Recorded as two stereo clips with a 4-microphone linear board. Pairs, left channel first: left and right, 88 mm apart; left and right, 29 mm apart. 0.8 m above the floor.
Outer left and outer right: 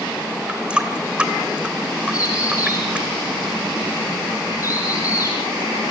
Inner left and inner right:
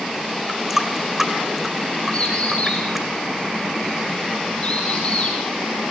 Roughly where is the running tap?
Centre.